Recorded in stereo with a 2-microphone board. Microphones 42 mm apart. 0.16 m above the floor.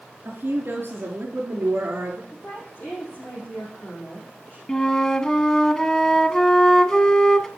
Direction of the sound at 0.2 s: 45° right (ahead or behind).